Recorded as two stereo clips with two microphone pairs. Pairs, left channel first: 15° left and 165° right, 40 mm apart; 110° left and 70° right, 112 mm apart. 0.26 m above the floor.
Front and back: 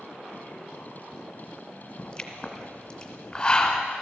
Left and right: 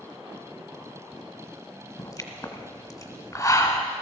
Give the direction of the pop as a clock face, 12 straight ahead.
10 o'clock.